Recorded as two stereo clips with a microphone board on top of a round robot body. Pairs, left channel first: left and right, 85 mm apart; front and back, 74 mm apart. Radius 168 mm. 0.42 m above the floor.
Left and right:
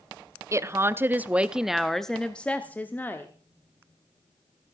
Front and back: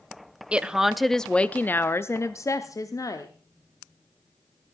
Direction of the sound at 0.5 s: 110° right.